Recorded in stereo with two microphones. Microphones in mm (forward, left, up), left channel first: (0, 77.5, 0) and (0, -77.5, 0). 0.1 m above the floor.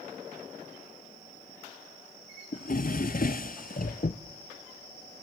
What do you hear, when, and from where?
2.5 s a drawer: 60° left (ahead or behind), 0.7 m